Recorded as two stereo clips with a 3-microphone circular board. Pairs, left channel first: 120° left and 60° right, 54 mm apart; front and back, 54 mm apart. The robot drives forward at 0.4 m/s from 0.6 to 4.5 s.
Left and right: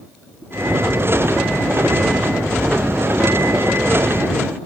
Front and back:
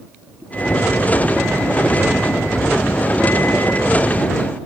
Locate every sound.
Only background noise.